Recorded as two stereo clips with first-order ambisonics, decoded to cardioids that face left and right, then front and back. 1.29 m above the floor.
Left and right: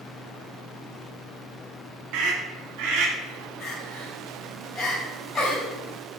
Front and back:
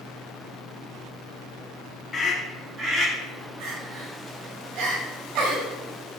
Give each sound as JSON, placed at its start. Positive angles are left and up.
{"t": 2.1, "sound": "a scream", "azimuth_deg": -75, "distance_m": 0.9}
{"t": 3.6, "sound": "crying", "azimuth_deg": 165, "distance_m": 2.5}